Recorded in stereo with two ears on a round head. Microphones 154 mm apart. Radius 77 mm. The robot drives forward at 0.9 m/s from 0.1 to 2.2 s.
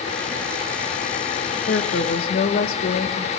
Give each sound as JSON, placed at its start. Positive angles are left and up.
{"t": 1.7, "sound": "a woman speaking", "side_deg": 65, "distance_m": 0.9}